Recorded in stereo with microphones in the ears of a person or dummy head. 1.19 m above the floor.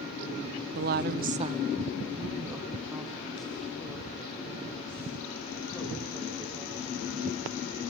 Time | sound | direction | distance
0.8 | a woman speaking | 45° right (ahead or behind) | 0.9 m